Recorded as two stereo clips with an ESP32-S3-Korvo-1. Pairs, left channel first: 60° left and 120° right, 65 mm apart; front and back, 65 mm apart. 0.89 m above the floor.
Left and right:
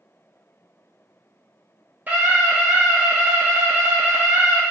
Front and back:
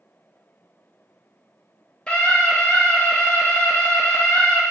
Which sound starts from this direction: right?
A scream, at 2.1 s.